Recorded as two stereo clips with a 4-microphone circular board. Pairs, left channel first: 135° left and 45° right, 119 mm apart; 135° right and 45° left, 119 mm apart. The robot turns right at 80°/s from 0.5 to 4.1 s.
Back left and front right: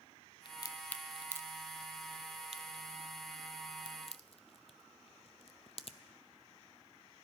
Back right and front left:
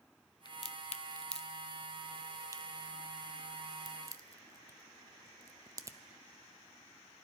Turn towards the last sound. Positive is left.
turn(degrees=105)